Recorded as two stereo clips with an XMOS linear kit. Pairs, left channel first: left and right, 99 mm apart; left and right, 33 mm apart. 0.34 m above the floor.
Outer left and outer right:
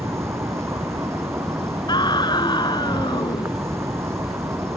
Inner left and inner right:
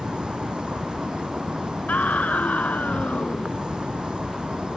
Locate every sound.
0.0 s an insect: 30° right (ahead or behind)
1.9 s a scream: 50° left (ahead or behind)